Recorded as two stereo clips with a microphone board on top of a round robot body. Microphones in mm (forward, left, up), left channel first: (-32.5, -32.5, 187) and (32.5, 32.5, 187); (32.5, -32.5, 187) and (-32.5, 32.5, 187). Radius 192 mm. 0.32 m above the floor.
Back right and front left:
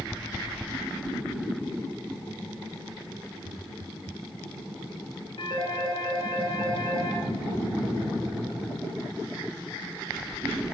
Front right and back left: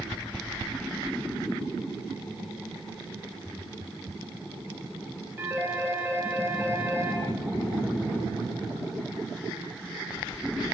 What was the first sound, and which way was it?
A phone ringing, 160° right.